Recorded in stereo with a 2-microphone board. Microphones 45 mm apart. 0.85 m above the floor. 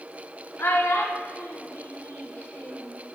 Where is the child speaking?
65° left (ahead or behind), 1.2 m; by 3.0 s 60° left (ahead or behind), 1.9 m.